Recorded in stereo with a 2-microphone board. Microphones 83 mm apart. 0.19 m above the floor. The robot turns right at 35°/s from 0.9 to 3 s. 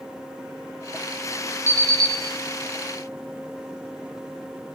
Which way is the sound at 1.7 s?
35° right (ahead or behind).